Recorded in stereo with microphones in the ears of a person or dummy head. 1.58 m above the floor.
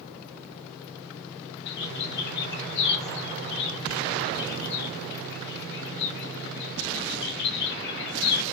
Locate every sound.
1.7 s a bird: 65° left (ahead or behind), 1.1 m